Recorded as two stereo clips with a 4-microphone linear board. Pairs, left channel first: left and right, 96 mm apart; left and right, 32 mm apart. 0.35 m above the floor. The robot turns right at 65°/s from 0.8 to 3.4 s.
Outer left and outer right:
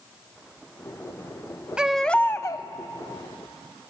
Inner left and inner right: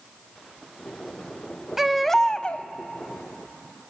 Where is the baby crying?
10° right, 0.6 m; by 2.7 s 45° left, 0.6 m.